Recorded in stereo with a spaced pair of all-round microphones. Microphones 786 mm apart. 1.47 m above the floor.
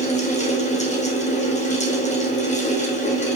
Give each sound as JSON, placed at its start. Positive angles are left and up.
{"t": 0.0, "sound": "a fan", "side_deg": 10, "distance_m": 1.5}